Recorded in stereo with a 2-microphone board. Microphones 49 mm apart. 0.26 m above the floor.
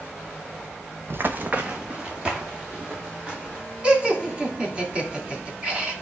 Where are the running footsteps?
55° right (ahead or behind), 0.6 m; by 3.6 s 15° right (ahead or behind), 4 m.